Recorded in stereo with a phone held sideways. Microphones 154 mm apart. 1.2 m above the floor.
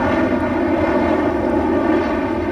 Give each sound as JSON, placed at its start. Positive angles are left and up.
{"t": 0.0, "sound": "an aircraft", "side_deg": 0}